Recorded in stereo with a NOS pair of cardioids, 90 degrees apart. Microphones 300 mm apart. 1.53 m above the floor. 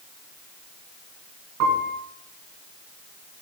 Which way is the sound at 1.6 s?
70° right.